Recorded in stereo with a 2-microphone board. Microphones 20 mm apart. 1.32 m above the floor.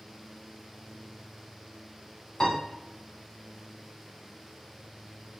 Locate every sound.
2.4 s a piano: 25° left (ahead or behind), 1.2 m